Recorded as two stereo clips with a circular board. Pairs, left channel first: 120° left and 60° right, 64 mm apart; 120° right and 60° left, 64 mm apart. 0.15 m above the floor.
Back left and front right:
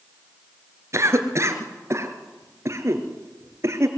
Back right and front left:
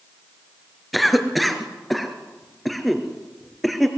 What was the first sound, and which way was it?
A cough, 30° right.